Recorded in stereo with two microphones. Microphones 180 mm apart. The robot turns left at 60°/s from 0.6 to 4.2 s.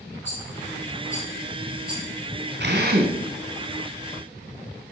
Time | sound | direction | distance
0.2 | a rattle | 70° left (ahead or behind) | 4 m
2.6 | a drill | 65° right (ahead or behind) | 2 m